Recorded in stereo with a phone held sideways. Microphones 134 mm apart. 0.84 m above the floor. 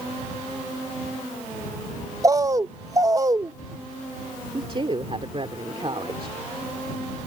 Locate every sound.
2.2 s a bird: 25° right (ahead or behind)
4.5 s a woman speaking: 40° right (ahead or behind)